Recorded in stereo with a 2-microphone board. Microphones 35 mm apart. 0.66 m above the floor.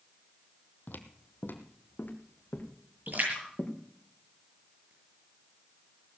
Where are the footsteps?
60° left (ahead or behind), 1.4 m; by 3.7 s 50° left (ahead or behind), 4 m.